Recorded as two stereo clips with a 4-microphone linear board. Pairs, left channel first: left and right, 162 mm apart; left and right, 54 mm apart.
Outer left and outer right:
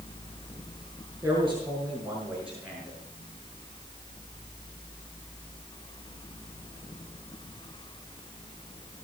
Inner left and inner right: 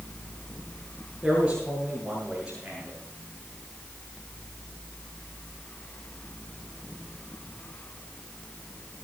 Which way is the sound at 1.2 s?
15° right (ahead or behind).